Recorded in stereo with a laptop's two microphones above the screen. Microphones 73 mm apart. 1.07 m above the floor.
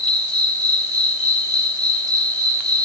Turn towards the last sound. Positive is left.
turn(degrees=-60)  # may be behind; listen again after turning